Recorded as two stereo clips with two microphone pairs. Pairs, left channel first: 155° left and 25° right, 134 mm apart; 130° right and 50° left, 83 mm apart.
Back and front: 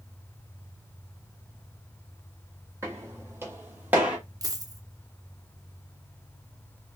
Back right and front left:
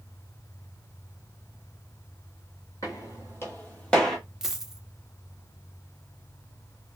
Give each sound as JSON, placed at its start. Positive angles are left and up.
{"t": 2.8, "sound": "footsteps", "azimuth_deg": -90, "distance_m": 1.5}
{"t": 4.4, "sound": "a dropped coin", "azimuth_deg": -40, "distance_m": 0.5}